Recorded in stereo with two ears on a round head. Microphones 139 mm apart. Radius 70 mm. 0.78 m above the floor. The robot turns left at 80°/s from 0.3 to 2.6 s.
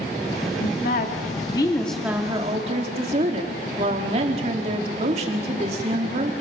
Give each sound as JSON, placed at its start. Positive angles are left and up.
{"t": 0.6, "sound": "a woman speaking", "azimuth_deg": 110, "distance_m": 1.8}